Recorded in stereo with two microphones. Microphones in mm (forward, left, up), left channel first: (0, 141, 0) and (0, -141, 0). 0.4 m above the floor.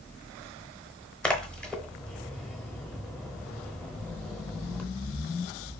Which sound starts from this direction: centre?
A splash, at 1.2 s.